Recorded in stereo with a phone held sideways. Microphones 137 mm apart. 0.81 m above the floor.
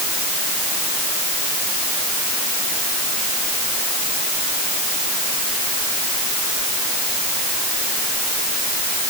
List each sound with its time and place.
Only background noise.